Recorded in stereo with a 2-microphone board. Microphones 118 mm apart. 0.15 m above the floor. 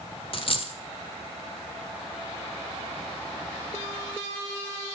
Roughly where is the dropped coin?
Left.